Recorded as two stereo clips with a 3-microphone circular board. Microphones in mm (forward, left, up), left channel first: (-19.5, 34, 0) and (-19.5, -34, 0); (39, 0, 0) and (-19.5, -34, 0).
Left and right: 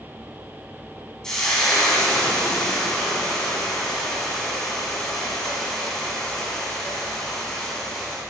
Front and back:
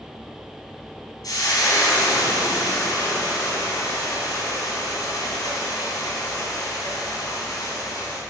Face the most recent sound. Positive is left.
turn(degrees=10)